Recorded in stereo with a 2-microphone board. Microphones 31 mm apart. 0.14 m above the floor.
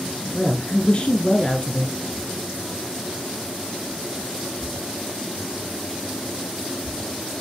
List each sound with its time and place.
0.3 s a woman speaking: 35° left (ahead or behind), 1.5 m